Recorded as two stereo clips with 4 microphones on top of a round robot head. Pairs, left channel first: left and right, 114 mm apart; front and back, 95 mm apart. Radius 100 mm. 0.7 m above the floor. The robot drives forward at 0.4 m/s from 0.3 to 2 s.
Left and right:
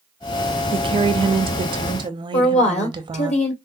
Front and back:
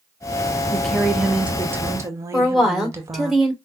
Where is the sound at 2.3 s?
90° left, 2 m.